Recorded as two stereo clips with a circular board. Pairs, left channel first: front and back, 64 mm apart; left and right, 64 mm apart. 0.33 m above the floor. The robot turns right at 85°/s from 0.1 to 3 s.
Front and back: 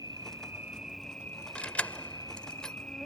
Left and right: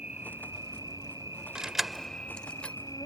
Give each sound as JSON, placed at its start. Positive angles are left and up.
{"t": 0.0, "sound": "an insect", "azimuth_deg": -160}
{"t": 1.6, "sound": "keys jangling", "azimuth_deg": -30}